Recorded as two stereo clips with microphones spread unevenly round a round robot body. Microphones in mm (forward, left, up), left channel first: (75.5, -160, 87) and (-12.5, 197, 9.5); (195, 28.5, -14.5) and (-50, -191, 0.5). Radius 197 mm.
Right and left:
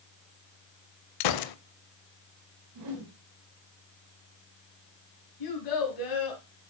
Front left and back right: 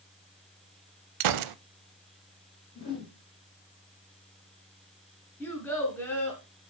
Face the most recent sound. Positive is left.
turn(degrees=-40)